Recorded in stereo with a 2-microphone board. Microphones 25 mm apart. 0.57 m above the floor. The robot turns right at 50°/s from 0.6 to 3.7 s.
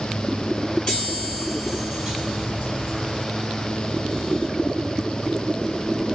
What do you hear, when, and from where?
0.9 s a chime: 140° left, 2 m; by 3.2 s 100° right, 2 m